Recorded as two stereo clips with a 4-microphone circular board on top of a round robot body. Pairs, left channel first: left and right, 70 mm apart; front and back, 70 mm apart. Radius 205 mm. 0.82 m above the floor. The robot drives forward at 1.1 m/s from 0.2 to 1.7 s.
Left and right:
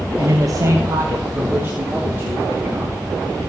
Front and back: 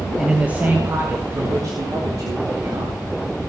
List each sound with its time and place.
0.2 s a man speaking: 95° right, 1.4 m; by 3.0 s 150° right, 2.5 m